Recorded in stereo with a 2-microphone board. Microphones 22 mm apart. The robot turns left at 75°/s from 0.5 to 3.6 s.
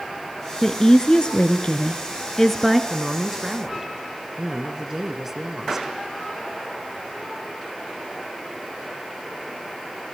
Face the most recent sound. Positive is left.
turn(degrees=-20)  # may be behind; listen again after turning